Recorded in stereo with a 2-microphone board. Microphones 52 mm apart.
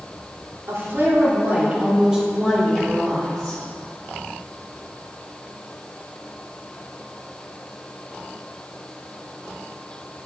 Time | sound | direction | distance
0.7 | a woman speaking | 55° right (ahead or behind) | 2.5 m